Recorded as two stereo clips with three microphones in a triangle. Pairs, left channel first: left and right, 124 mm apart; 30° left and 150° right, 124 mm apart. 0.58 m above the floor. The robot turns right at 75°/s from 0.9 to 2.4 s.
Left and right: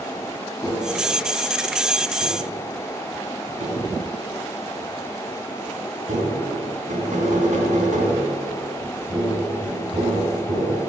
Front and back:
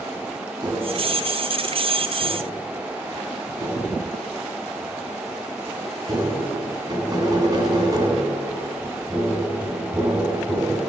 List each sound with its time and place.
0.6 s tapping: 155° left, 2.5 m; by 10.8 s 90° right, 2.5 m